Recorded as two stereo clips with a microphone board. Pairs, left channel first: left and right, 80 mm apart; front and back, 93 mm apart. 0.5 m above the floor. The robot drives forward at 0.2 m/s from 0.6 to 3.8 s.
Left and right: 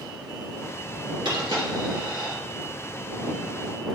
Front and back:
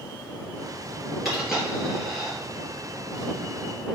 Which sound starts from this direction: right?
A dropped coin, at 1.2 s.